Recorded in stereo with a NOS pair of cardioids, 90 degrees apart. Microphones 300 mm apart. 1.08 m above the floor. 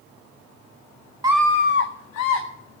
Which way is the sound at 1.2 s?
15° right.